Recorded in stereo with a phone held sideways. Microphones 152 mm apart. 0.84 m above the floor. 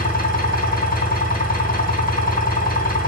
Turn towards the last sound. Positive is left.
turn(degrees=75)  # may be behind; listen again after turning